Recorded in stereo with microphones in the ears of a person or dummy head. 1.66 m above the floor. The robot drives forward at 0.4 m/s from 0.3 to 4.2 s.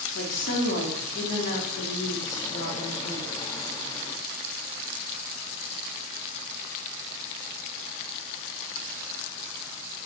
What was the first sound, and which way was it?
A woman speaking, 65° left (ahead or behind).